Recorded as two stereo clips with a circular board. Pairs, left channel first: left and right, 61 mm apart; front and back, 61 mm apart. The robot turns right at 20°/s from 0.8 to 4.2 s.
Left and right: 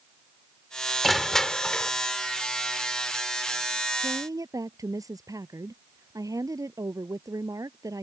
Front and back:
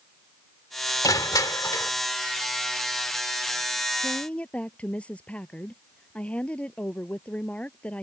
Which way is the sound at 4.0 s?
70° right.